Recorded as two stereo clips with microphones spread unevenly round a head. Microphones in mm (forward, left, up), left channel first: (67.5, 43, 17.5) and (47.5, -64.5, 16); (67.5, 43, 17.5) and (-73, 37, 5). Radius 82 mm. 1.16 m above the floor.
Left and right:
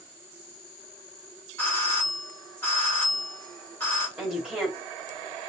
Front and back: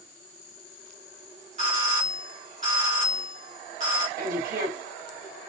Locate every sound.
1.6 s a doorbell: 155° left, 2.5 m
4.2 s a woman speaking: 175° left, 2.5 m